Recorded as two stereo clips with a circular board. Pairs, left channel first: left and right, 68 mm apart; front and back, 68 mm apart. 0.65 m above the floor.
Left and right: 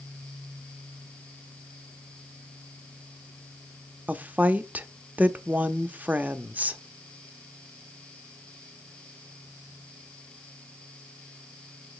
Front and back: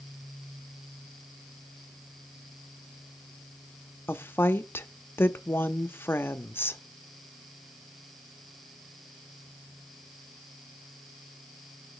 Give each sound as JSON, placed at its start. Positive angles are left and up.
{"t": 4.1, "sound": "a woman speaking", "azimuth_deg": -35, "distance_m": 0.6}